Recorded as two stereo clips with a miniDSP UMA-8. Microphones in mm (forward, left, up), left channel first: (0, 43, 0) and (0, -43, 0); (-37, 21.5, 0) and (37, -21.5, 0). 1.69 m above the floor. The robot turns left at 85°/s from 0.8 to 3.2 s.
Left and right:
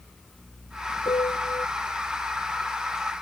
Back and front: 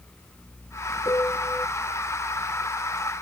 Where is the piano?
110° left; by 1.7 s 60° left.